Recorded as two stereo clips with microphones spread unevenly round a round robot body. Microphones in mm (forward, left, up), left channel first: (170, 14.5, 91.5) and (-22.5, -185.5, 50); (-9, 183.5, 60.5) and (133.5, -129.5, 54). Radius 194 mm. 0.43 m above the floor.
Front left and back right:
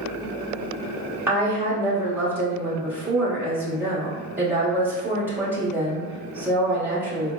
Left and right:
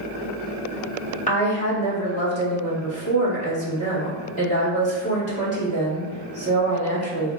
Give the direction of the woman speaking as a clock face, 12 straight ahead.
6 o'clock.